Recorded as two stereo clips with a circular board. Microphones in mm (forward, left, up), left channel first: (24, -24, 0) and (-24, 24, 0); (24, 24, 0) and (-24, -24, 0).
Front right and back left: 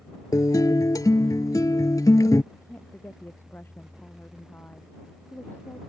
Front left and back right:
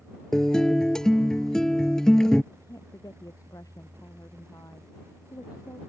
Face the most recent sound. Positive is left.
turn(degrees=15)